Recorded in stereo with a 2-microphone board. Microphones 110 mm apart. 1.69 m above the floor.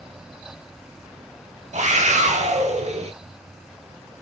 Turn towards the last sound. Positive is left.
turn(degrees=-65)  # may be behind; listen again after turning